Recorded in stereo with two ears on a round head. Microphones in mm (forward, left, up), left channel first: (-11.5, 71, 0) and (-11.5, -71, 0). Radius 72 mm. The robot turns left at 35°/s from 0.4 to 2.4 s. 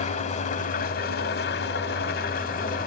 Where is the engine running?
125° left, 1.4 m; by 2.9 s 55° left, 1.4 m.